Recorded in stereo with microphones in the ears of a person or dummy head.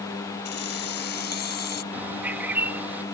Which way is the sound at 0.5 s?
50° left (ahead or behind).